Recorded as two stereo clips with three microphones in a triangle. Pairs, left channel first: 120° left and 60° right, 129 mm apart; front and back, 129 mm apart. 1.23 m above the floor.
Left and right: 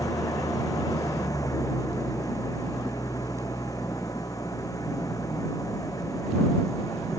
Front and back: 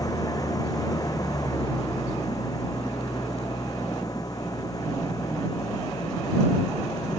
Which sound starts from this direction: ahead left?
An engine running, at 0.0 s.